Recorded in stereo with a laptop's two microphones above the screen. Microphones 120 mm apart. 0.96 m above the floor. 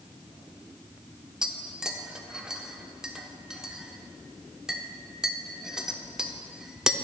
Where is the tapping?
5° right (ahead or behind), 0.8 m.